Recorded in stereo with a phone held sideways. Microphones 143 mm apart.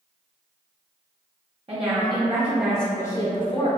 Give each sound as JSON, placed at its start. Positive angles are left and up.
{"t": 1.7, "sound": "a woman speaking", "side_deg": -40, "distance_m": 0.8}